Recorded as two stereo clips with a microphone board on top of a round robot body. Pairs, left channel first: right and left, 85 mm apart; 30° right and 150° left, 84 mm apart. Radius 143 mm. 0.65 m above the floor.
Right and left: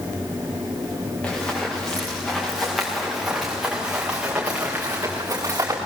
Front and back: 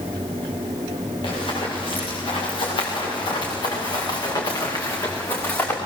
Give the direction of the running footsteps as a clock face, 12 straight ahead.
1 o'clock.